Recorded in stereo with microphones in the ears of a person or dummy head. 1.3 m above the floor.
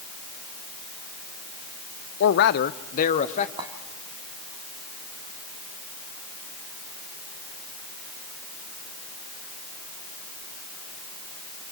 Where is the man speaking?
65° left (ahead or behind), 0.6 m; by 3.5 s 35° left (ahead or behind), 1.2 m.